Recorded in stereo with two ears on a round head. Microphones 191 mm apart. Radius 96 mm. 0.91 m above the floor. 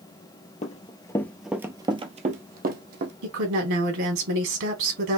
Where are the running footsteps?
35° left (ahead or behind), 1.0 m; by 3.1 s 50° right (ahead or behind), 1.6 m.